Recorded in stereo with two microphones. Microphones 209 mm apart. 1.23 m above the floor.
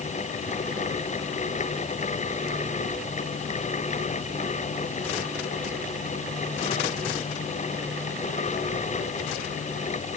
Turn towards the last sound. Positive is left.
No sound to turn to.